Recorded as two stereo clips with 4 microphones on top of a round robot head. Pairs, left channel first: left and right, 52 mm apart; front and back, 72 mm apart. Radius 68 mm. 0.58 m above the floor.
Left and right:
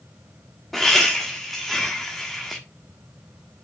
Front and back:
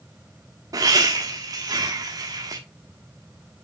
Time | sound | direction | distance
0.7 | laughter | straight behind | 1.3 m